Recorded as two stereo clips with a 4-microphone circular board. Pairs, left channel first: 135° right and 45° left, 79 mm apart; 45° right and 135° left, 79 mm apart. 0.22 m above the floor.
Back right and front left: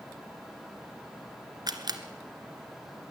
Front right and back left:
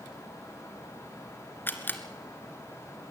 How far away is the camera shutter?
About 1.7 m.